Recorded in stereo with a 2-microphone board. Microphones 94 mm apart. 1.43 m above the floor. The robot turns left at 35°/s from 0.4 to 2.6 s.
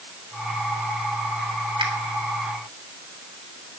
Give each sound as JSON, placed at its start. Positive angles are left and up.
{"t": 1.8, "sound": "a finger snap", "side_deg": -65, "distance_m": 3.0}